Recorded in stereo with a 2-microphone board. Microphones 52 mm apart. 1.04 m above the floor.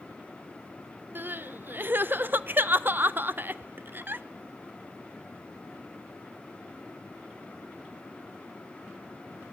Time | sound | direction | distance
1.1 | crying | 40° right (ahead or behind) | 0.7 m